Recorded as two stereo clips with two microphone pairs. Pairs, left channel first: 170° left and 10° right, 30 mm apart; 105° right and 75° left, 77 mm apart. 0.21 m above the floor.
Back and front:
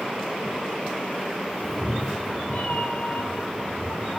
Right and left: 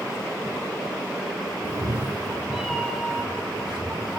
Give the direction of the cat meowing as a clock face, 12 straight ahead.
9 o'clock.